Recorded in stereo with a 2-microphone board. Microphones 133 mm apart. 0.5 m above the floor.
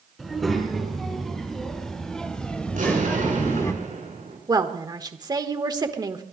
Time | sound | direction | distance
0.2 | a child speaking | centre (ahead or behind) | 5 m
2.7 | an explosion | 80° right | 6 m
4.5 | a woman speaking | 30° right (ahead or behind) | 1.3 m